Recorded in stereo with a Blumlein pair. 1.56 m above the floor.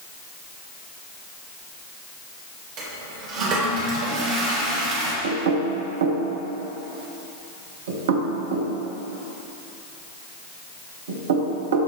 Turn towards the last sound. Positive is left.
turn(degrees=-60)